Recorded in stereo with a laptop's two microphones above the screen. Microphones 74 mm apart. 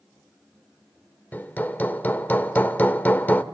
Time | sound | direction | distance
1.3 | hammering | 25° left (ahead or behind) | 1.1 m